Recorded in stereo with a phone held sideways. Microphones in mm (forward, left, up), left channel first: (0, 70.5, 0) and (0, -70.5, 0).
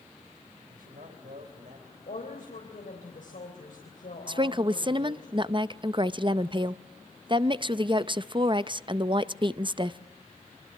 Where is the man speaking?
80° right, 4.5 m.